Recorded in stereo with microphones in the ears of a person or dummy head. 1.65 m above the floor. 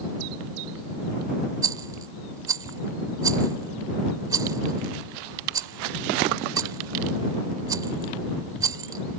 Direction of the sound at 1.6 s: 20° right (ahead or behind).